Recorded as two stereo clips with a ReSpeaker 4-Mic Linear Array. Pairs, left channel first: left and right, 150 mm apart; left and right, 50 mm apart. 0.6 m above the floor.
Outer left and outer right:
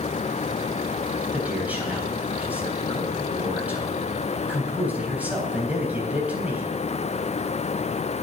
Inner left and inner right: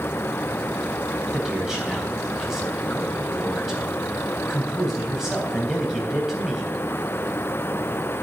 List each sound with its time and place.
1.3 s a man speaking: 10° right (ahead or behind), 3.5 m